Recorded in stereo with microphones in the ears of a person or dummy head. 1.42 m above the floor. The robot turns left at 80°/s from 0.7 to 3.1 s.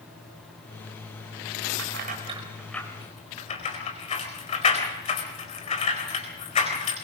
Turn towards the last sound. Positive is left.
turn(degrees=40)  # may be behind; listen again after turning